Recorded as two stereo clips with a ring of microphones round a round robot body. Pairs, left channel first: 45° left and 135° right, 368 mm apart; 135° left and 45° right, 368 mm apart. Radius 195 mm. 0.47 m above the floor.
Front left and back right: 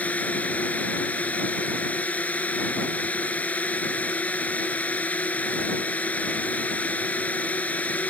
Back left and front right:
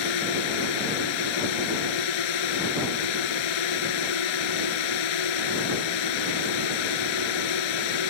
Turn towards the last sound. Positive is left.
turn(degrees=130)